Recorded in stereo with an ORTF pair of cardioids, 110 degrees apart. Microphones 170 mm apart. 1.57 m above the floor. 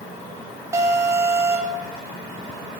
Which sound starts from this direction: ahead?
An alarm, at 0.7 s.